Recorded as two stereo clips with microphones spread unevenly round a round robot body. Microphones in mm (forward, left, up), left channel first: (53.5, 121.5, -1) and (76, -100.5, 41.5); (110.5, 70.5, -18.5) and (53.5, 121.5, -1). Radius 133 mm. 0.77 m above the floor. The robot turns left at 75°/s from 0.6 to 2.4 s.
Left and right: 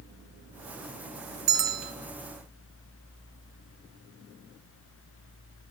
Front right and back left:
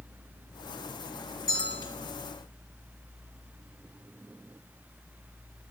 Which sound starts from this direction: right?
A bell, at 1.5 s.